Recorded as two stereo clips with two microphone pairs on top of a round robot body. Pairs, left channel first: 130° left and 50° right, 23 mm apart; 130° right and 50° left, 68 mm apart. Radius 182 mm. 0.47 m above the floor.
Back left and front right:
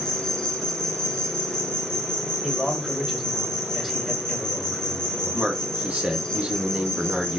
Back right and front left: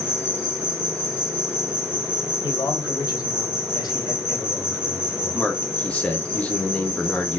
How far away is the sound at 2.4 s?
About 2.5 m.